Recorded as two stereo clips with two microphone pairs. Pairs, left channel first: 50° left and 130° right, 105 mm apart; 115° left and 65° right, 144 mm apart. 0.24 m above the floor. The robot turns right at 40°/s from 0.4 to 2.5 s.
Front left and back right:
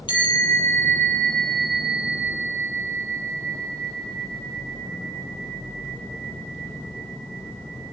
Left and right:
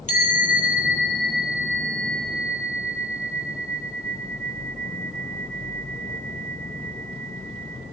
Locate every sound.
0.1 s a bell: 85° left, 7.5 m; by 7.8 s 170° left, 7.5 m